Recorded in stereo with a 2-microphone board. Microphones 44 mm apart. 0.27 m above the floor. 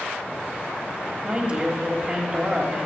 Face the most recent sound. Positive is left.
turn(degrees=-25)  # may be behind; listen again after turning